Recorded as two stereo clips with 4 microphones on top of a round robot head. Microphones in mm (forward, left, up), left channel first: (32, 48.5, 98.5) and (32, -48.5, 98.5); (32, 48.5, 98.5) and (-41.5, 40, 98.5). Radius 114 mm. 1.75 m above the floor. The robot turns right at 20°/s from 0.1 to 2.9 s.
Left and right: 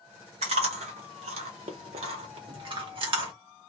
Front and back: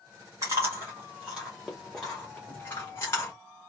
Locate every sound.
0.4 s chewing: 110° right, 0.7 m; by 3.3 s 60° right, 0.7 m